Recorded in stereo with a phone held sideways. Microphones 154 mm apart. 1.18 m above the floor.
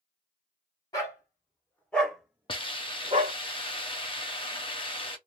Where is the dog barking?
25° left (ahead or behind), 1.6 m; by 3.4 s 50° right (ahead or behind), 0.9 m.